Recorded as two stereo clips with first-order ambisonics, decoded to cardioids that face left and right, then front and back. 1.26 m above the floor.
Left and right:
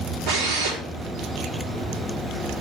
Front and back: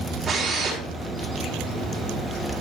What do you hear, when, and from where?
0.3 s a drill: 100° right, 4 m